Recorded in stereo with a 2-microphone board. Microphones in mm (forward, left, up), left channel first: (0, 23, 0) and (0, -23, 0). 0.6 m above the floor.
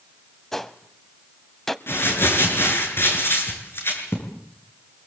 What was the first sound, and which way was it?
A gunshot, 5° left (ahead or behind).